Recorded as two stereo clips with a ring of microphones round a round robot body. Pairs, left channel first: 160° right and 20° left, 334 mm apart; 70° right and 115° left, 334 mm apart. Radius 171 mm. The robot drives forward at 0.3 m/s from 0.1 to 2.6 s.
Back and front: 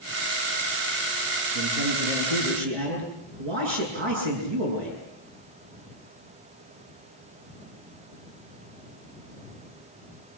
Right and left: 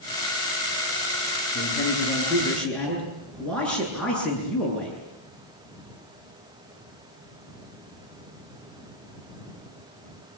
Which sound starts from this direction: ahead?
A man speaking, at 1.6 s.